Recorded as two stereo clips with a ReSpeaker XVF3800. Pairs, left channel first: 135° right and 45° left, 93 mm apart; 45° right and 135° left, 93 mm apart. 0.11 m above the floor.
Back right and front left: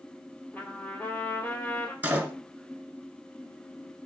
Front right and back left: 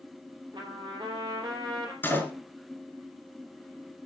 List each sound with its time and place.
0.5 s a trumpet: 155° left, 3 m
2.0 s a door slam: 5° right, 1.1 m